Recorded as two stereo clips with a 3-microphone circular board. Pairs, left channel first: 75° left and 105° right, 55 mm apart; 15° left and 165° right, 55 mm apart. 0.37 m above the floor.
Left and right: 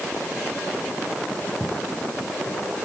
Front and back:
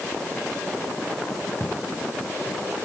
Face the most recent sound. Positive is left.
turn(degrees=65)